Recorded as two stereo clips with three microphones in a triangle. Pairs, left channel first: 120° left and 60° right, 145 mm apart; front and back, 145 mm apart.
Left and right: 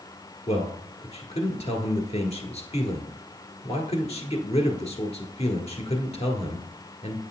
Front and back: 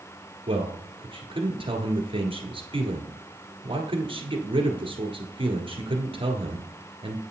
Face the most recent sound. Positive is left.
turn(degrees=140)